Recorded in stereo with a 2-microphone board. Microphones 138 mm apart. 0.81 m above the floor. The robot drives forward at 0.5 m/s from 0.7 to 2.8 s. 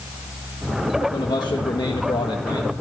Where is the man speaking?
35° left (ahead or behind), 1.2 m.